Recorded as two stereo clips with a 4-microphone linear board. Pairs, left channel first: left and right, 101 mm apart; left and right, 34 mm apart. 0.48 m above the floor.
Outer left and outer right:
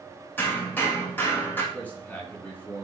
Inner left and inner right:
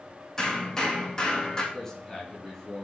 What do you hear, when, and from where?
0.4 s hammering: 20° left (ahead or behind), 6 m
1.7 s a man speaking: 15° left (ahead or behind), 7.5 m